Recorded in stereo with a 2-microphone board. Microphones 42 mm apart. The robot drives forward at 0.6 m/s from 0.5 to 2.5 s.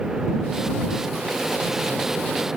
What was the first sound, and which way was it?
Only background noise.